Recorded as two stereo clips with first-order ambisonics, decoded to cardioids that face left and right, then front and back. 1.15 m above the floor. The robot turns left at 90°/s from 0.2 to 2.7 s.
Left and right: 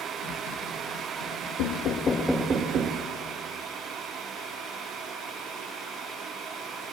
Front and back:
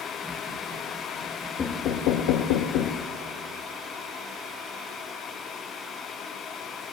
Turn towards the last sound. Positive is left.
turn(degrees=-30)